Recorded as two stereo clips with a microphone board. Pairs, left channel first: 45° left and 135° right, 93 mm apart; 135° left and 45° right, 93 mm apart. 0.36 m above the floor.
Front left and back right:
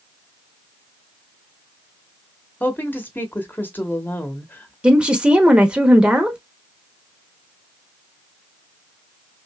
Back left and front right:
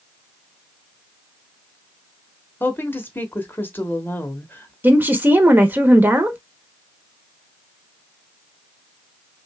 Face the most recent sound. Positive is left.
turn(degrees=-75)